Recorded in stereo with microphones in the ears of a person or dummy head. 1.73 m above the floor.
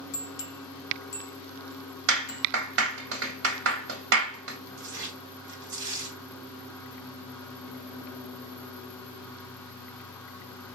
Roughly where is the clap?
Right.